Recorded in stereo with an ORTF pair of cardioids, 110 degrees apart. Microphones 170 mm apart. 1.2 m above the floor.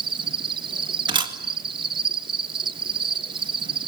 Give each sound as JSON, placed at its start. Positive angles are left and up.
{"t": 0.0, "sound": "an insect", "azimuth_deg": -30, "distance_m": 1.0}
{"t": 1.1, "sound": "a camera shutter", "azimuth_deg": -30, "distance_m": 2.0}